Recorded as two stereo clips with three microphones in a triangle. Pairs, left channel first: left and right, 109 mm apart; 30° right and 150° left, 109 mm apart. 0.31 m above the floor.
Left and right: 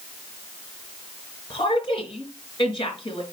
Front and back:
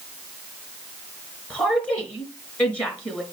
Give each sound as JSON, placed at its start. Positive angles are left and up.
{"t": 1.5, "sound": "a woman speaking", "azimuth_deg": 50, "distance_m": 4.5}